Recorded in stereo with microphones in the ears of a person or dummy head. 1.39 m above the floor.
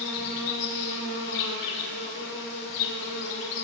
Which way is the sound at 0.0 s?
55° left (ahead or behind).